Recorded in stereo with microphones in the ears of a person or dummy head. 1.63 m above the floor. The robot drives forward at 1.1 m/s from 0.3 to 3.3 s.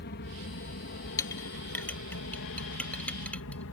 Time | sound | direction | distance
0.0 | an aircraft | 50° left (ahead or behind) | ?
1.2 | a clink | 15° left (ahead or behind) | ?